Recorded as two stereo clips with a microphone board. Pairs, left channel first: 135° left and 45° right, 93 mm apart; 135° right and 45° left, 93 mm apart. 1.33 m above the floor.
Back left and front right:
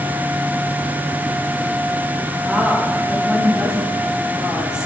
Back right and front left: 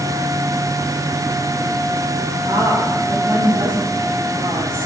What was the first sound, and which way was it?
A woman speaking, 35° left.